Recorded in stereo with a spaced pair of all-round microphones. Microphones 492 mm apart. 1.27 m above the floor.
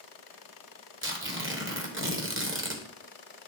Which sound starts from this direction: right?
Tearing paper, at 1.0 s.